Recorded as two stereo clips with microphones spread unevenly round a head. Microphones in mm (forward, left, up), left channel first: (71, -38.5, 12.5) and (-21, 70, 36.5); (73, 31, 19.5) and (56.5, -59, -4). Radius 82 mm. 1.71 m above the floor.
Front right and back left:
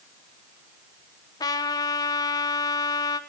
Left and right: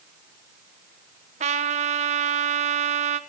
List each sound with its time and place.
1.4 s a trumpet: 120° right, 1.1 m